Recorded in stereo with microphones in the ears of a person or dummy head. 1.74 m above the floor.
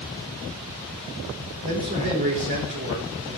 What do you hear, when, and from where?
1.6 s a man speaking: 50° right (ahead or behind), 5 m